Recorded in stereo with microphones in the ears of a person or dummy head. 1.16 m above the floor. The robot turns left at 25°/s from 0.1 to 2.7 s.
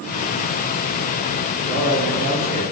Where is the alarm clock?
I don't hear an alarm clock.